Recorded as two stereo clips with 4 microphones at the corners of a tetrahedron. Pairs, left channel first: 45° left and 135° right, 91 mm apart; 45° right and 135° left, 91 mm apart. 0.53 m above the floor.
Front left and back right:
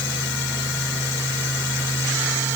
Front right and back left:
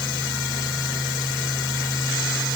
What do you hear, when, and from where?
Only background noise.